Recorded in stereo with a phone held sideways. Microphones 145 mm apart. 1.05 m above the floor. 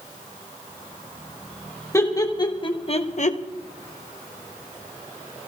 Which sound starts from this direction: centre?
Laughter, at 1.9 s.